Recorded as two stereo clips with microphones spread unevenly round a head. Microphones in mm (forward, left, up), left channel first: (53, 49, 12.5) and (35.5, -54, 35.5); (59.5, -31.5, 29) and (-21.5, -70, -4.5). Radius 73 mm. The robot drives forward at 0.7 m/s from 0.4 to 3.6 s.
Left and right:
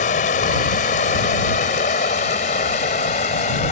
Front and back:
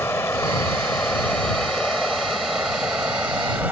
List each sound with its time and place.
0.0 s running water: 95° left; by 3.7 s 120° left